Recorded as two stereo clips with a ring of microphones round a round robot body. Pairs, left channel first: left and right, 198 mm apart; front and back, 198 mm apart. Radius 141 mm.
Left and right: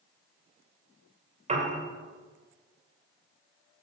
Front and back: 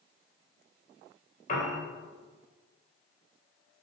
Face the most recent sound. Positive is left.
turn(degrees=-45)